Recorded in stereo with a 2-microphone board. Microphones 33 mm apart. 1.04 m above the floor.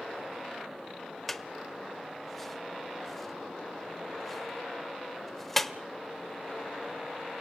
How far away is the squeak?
About 0.8 m.